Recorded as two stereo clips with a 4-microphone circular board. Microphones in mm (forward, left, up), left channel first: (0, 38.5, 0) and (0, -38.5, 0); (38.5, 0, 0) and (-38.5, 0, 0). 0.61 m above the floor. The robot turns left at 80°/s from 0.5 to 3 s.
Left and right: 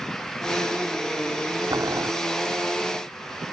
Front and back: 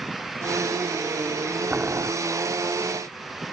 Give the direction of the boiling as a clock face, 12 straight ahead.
4 o'clock.